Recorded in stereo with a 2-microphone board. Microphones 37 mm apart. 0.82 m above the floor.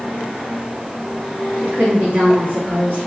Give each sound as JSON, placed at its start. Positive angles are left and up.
{"t": 1.6, "sound": "a woman speaking", "side_deg": -55, "distance_m": 1.3}